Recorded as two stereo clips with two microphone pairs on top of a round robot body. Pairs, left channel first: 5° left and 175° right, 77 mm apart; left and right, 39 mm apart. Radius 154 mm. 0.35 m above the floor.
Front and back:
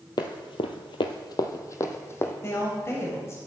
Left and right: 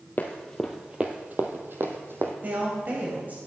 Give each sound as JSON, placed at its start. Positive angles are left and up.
{"t": 0.2, "sound": "running footsteps", "azimuth_deg": 45, "distance_m": 0.6}
{"t": 2.4, "sound": "a woman speaking", "azimuth_deg": -50, "distance_m": 3.0}